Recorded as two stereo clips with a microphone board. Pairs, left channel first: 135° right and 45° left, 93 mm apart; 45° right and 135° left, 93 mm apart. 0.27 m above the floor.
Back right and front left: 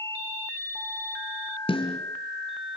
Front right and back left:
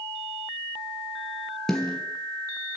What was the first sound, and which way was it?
A snare drum, 130° right.